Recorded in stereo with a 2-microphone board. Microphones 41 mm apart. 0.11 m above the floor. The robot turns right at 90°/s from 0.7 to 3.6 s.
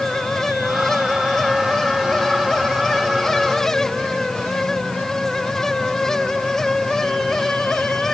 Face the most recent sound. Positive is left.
No sound to turn to.